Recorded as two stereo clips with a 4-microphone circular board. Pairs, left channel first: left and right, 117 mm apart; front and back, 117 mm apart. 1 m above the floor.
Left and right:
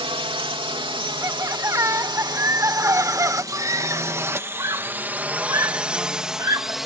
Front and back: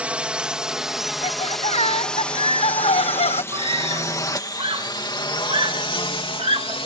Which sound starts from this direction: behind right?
A scream, at 3.5 s.